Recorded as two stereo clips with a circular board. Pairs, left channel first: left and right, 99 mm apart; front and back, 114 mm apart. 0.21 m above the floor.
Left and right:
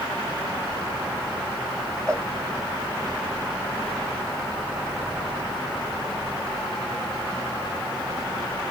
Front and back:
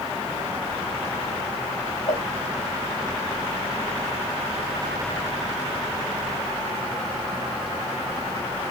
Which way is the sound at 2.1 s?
5° left.